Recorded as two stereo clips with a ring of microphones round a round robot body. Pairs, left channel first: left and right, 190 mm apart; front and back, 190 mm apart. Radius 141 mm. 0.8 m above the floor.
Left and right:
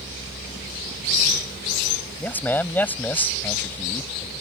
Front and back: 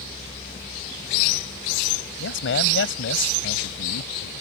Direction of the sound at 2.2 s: 10° left.